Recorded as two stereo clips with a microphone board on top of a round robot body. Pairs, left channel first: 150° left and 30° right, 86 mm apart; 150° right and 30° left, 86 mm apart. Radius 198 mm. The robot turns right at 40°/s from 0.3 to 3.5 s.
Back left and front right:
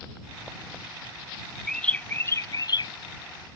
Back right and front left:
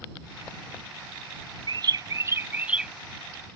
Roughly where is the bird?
Ahead left.